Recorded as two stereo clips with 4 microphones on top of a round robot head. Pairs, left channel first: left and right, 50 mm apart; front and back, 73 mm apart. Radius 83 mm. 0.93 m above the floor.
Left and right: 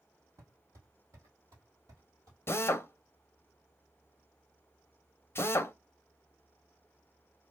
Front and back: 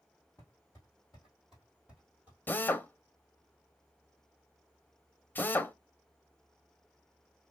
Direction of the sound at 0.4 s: 75° right.